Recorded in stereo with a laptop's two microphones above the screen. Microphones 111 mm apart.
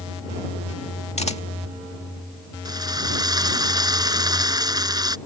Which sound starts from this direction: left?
A camera shutter, at 1.2 s.